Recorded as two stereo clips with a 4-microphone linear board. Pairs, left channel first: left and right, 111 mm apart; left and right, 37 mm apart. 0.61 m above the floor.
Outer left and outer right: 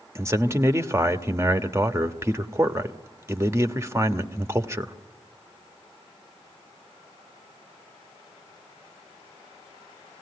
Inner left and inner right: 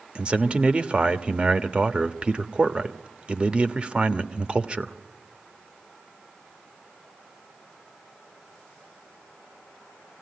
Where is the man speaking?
25° right (ahead or behind), 1.0 m.